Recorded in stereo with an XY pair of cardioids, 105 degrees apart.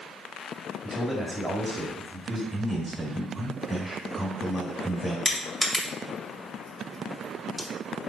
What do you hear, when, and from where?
0.8 s a man speaking: 15° right, 1.8 m
2.5 s a man speaking: 5° right, 2 m
5.2 s crushing: 15° left, 1.7 m